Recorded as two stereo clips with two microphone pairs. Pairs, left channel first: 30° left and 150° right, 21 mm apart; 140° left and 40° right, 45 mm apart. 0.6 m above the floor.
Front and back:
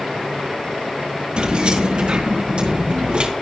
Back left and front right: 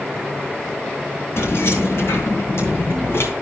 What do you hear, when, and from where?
1.4 s keys jangling: 165° left, 4 m